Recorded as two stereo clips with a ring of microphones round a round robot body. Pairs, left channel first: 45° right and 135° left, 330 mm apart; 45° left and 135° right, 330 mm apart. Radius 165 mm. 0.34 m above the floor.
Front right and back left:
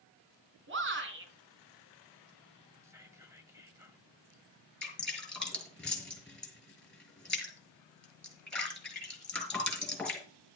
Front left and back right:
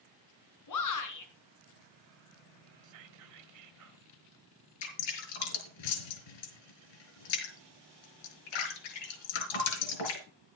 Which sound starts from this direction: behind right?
Whispering, at 2.8 s.